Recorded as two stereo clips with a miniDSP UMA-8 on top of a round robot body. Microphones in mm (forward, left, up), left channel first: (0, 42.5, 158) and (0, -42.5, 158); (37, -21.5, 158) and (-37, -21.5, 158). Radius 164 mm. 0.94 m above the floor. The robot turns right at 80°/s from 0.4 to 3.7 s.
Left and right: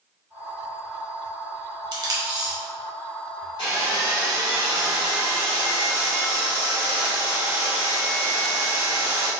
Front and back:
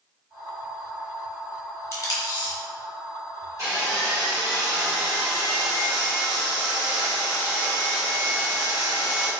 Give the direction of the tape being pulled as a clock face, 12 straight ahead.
2 o'clock.